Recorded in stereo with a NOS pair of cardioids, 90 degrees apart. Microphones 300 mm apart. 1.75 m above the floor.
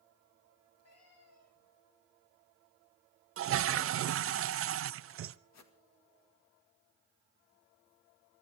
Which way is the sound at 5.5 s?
65° left.